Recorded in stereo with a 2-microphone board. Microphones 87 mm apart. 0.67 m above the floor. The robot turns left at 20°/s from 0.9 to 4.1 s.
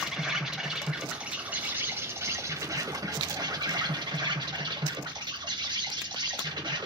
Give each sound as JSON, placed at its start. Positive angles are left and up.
{"t": 0.0, "sound": "an insect", "azimuth_deg": -5, "distance_m": 0.9}